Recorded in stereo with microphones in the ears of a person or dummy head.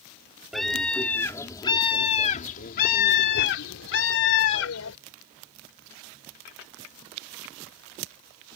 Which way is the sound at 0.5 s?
Centre (ahead or behind).